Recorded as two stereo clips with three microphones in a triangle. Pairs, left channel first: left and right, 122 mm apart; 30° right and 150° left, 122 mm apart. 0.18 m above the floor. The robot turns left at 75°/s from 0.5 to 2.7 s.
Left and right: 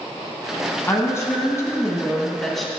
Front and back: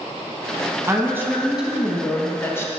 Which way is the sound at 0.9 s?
130° left.